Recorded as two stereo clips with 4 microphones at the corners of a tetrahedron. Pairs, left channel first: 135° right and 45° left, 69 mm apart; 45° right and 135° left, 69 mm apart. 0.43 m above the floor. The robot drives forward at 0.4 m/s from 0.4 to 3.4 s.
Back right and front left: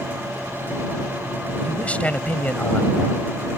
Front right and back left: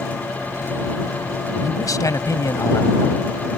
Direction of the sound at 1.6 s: 65° right.